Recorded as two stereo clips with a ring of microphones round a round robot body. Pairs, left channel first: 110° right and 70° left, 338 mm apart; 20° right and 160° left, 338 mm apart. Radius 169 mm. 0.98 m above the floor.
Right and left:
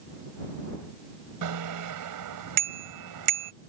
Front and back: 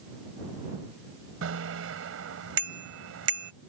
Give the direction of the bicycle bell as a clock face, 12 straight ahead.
8 o'clock.